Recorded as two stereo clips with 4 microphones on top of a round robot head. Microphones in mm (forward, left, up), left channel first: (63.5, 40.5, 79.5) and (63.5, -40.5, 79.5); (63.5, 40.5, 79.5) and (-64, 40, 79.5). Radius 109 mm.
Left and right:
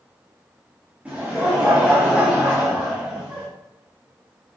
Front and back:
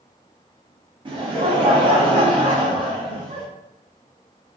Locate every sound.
1.1 s laughter: 155° right, 0.6 m